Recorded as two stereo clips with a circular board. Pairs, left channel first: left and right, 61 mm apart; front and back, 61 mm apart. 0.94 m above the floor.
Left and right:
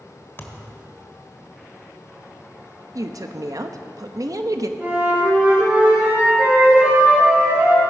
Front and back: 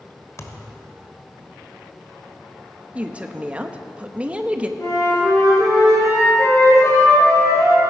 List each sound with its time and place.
0.4 s a thud: 35° left, 1.4 m
3.0 s a woman speaking: 110° right, 0.9 m
4.8 s a flute: 35° right, 5.5 m